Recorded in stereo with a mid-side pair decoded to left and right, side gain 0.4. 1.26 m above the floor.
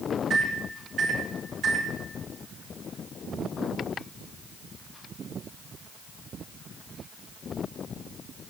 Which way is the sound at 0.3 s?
60° right.